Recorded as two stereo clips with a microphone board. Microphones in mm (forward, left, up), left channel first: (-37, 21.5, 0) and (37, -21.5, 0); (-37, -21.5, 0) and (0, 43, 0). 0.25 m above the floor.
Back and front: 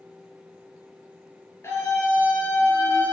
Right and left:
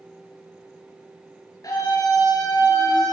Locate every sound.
1.6 s a scream: 155° right, 4 m; by 3.1 s 145° right, 2.5 m